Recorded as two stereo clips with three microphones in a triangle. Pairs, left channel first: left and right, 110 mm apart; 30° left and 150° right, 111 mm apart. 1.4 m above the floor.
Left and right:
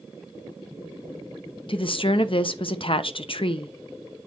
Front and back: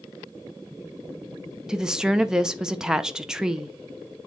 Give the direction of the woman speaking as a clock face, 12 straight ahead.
8 o'clock.